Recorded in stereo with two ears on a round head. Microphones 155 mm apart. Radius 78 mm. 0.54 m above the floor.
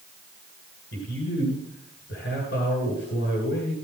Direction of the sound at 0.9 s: 70° left (ahead or behind).